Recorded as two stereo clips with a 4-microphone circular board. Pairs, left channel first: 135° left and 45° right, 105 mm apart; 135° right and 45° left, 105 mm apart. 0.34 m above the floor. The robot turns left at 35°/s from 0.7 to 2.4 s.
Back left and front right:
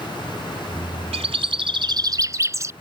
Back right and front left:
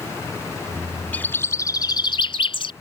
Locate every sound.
1.1 s a bird: 60° right; by 2.7 s 105° right